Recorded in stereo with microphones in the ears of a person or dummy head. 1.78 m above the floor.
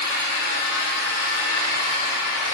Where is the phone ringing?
No phone ringing in this recording.